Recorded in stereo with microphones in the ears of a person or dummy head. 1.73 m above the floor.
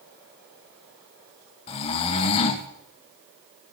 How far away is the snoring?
About 0.9 m.